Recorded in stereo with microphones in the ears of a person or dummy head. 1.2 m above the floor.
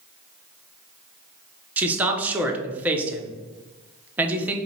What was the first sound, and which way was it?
A man speaking, 5° right (ahead or behind).